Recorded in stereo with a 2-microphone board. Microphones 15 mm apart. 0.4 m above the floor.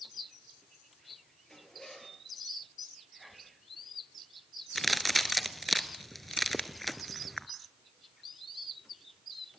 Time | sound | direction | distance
1.5 | a zipper | 35° left (ahead or behind) | 5.5 m
3.2 | whispering | centre (ahead or behind) | 3.5 m
4.8 | a crack | 5° left (ahead or behind) | 1.2 m